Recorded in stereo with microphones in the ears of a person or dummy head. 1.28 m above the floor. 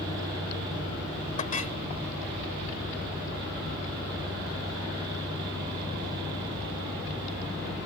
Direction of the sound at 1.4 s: 35° left (ahead or behind).